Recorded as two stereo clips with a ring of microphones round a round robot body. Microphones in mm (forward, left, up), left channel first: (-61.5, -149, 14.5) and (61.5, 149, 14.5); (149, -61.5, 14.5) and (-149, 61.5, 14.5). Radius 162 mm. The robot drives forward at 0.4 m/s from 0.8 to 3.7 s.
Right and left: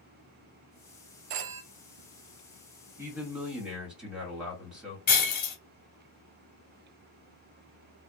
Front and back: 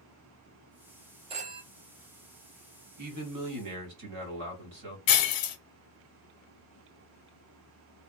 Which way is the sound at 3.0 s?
150° left.